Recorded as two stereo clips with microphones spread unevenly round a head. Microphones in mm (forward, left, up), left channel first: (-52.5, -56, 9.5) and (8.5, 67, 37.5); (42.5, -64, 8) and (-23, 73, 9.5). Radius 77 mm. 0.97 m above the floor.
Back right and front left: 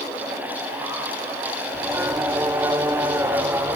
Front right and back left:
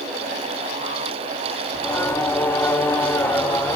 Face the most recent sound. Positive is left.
turn(degrees=10)